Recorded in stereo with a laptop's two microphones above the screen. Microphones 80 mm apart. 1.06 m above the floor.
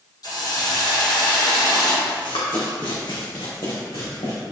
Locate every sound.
0.2 s a hiss: 55° left (ahead or behind), 1.4 m
2.1 s running footsteps: 65° left (ahead or behind), 3 m; by 4.3 s 70° left (ahead or behind), 4 m